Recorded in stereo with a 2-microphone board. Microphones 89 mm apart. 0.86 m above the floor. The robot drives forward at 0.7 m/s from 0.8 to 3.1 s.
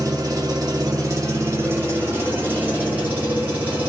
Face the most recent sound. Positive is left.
turn(degrees=-20)  # may be behind; listen again after turning